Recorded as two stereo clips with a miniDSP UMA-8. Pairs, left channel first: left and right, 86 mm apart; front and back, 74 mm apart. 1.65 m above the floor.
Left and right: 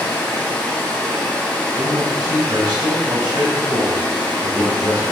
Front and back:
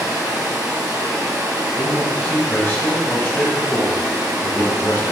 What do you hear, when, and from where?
0.0 s running water: 155° left, 1.7 m
1.8 s a man speaking: 60° right, 2 m